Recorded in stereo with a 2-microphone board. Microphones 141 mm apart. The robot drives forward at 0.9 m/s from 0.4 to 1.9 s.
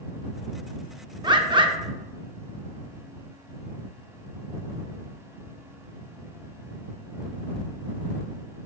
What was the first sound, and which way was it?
A bird, 30° right (ahead or behind).